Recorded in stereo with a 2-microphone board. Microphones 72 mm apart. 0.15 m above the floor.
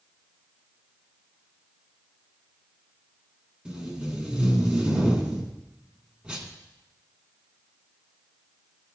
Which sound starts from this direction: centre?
Tape being pulled, at 3.6 s.